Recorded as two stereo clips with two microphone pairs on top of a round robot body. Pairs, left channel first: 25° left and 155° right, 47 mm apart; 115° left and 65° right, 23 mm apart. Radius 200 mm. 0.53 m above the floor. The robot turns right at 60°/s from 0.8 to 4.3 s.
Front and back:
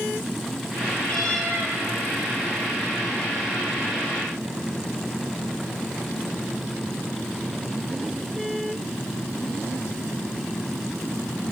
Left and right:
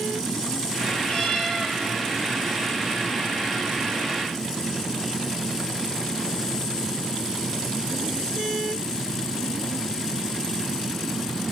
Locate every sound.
1.1 s a cat meowing: 95° left, 7.5 m; by 1.8 s 135° left, 7.5 m